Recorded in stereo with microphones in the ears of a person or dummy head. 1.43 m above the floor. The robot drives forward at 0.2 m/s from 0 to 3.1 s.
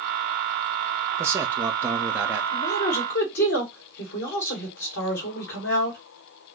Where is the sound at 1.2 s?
10° right (ahead or behind), 0.6 m.